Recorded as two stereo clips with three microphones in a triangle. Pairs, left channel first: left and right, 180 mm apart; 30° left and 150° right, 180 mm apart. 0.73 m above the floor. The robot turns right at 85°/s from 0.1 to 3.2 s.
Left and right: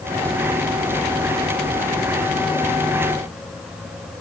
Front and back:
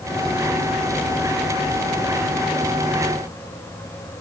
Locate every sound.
Only background noise.